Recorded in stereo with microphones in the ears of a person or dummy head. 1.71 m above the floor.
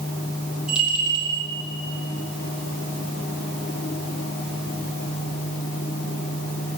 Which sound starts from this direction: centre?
A bell, at 0.7 s.